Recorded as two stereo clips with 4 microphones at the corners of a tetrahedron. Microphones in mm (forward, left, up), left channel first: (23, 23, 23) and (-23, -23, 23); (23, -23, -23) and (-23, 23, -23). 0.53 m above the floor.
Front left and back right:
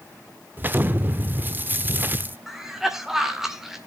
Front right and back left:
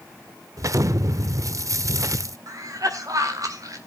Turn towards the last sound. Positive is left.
turn(degrees=140)